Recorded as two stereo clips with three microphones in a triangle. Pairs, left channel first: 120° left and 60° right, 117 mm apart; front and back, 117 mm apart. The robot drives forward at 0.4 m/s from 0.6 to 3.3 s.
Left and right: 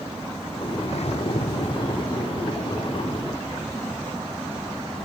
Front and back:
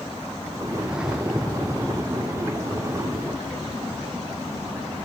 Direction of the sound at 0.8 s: 95° left.